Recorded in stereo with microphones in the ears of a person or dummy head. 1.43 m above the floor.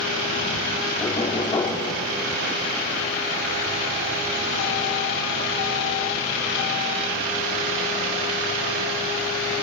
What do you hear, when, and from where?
1.0 s knocking: 20° left (ahead or behind), 3 m